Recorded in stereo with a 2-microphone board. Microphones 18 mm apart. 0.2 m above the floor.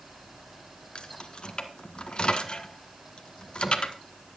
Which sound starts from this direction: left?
Keys jangling, at 0.9 s.